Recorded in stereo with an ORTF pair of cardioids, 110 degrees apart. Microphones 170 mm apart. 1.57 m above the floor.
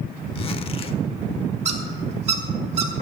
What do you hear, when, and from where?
0.3 s a zipper: 35° left, 1.0 m
1.6 s a squeak: 45° right, 2.5 m